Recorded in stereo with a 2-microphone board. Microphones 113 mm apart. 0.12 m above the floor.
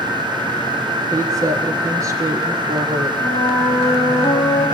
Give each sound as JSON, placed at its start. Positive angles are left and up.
{"t": 1.1, "sound": "a woman speaking", "side_deg": -30, "distance_m": 5.0}
{"t": 3.2, "sound": "a flute", "side_deg": 25, "distance_m": 8.5}